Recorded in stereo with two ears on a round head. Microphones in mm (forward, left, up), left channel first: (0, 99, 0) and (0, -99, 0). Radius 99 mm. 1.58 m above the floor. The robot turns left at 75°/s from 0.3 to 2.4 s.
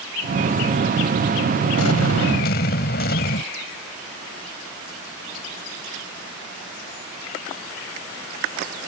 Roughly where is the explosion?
Left.